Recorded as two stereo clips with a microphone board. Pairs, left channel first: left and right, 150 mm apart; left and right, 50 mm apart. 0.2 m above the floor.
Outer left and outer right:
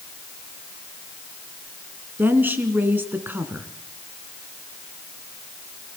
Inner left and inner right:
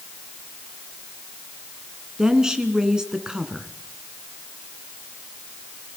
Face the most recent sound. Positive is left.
turn(degrees=-15)  # may be behind; listen again after turning